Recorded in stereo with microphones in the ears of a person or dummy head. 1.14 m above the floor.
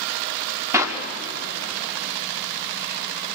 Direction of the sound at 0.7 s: 15° right (ahead or behind).